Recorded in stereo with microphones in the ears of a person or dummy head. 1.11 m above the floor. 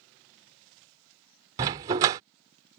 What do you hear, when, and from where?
1.6 s a dog barking: 20° right (ahead or behind)